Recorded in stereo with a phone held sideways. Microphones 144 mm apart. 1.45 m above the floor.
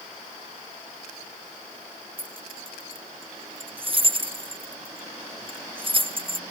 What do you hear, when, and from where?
2.2 s keys jangling: 40° right (ahead or behind)